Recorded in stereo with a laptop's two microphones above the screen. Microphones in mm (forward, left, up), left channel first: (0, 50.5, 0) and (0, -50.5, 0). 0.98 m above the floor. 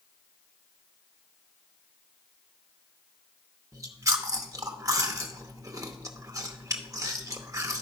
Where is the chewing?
35° right (ahead or behind), 0.7 m.